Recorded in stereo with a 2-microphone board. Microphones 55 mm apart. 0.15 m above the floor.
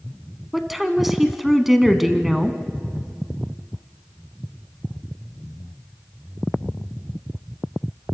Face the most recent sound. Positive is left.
turn(degrees=-5)  # may be behind; listen again after turning